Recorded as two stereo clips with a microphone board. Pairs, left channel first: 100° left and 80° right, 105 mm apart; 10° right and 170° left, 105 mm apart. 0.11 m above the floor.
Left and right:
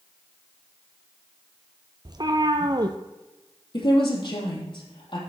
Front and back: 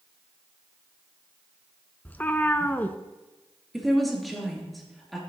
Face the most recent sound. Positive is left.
turn(degrees=80)